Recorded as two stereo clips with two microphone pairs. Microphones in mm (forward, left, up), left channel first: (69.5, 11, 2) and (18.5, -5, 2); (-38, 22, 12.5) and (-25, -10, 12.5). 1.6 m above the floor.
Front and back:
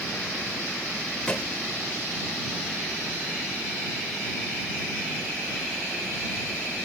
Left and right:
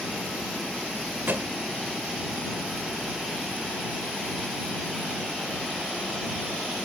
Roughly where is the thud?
Ahead right.